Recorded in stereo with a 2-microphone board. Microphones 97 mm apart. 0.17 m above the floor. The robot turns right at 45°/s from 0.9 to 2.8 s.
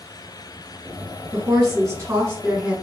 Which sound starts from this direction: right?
A woman speaking, at 1.3 s.